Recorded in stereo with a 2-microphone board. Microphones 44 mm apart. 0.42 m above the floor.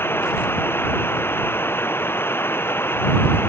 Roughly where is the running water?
Left.